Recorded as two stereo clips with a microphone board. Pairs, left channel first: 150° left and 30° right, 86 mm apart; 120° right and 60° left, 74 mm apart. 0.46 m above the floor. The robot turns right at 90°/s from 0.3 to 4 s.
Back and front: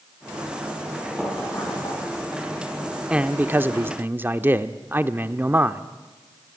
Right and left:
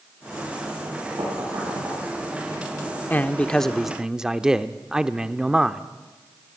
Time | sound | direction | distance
1.2 | knocking | 55° left | 8 m
3.1 | a man speaking | 90° right | 0.7 m